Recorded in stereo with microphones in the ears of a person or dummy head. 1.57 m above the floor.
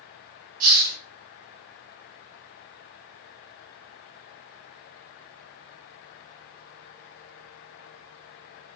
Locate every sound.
0.6 s a hiss: 50° right (ahead or behind), 1.8 m